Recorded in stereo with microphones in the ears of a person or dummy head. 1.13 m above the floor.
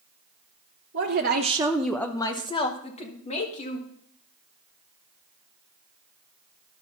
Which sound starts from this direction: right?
A woman speaking, at 0.9 s.